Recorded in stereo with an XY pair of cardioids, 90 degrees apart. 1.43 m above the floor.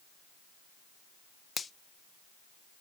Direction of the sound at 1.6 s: 45° left.